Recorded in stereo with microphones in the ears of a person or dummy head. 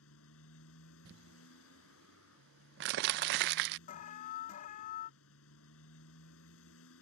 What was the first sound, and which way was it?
A motorcycle, 85° left.